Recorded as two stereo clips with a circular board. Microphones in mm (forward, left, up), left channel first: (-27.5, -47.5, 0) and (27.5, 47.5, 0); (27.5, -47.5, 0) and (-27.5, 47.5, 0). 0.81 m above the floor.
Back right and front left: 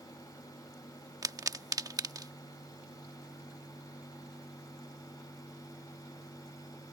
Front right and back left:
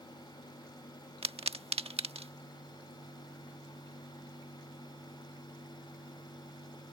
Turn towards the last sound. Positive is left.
turn(degrees=115)